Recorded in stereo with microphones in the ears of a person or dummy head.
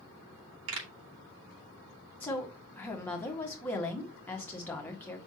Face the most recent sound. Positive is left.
turn(degrees=5)  # may be behind; listen again after turning